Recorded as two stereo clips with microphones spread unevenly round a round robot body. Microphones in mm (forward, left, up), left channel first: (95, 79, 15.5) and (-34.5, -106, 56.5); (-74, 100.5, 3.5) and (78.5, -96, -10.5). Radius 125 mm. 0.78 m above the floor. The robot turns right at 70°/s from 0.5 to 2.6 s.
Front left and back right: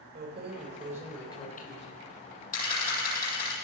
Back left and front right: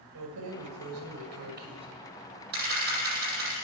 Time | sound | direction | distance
0.1 | keys jangling | 75° right | 2.5 m
2.5 | a camera shutter | 5° right | 8.5 m